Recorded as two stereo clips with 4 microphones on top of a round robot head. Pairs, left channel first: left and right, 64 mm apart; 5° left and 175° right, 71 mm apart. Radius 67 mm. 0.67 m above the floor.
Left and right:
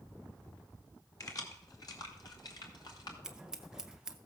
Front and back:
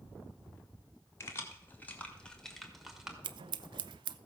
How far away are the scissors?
About 0.6 m.